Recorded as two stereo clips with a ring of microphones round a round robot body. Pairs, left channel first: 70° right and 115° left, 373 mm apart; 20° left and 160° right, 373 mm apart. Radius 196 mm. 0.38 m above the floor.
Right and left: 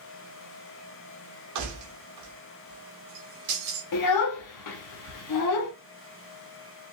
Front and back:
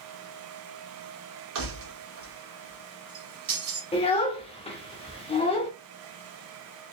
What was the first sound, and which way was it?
Keys jangling, 150° left.